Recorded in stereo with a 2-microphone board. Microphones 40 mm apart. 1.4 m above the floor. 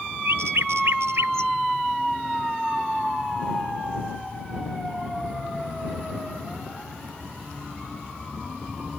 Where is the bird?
80° right.